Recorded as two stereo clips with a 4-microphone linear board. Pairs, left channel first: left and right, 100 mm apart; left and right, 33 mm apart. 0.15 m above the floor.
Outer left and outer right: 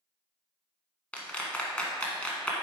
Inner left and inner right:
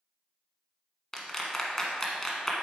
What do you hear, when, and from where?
1.1 s a clap: 10° left (ahead or behind), 1.2 m